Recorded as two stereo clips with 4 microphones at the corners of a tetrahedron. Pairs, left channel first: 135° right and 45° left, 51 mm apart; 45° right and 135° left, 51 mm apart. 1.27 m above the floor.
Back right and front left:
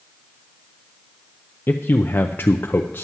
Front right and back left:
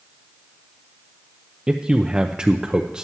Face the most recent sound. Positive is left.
turn(degrees=-160)